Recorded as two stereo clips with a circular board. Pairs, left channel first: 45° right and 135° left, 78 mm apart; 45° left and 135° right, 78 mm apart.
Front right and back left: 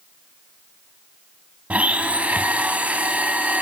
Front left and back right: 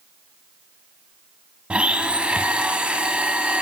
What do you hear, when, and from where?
1.7 s a blender: 170° left, 0.9 m